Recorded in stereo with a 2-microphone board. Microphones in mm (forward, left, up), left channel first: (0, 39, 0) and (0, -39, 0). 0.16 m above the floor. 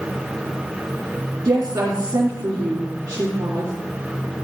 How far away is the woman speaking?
About 2.5 m.